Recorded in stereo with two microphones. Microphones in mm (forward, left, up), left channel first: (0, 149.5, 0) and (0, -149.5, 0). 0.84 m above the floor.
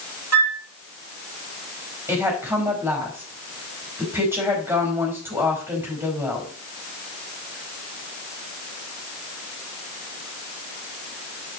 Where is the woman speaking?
10° right (ahead or behind), 5 m.